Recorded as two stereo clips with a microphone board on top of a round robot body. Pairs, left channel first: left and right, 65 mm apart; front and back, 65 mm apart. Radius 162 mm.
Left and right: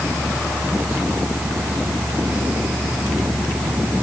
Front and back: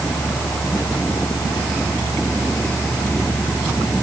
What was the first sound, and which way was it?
Only background noise.